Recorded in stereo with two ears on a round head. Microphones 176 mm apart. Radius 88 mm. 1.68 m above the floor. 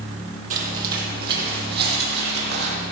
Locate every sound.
0.5 s footsteps: 40° right (ahead or behind), 2.5 m; by 2.8 s 55° right (ahead or behind), 3 m